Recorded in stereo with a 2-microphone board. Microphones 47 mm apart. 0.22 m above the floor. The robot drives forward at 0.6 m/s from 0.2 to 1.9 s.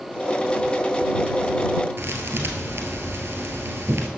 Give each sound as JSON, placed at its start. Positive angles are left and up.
{"t": 2.0, "sound": "a thud", "side_deg": -60, "distance_m": 1.4}